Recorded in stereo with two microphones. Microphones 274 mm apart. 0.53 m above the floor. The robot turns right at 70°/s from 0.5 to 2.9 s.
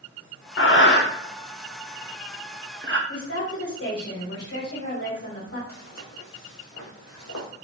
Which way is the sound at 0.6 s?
50° left (ahead or behind).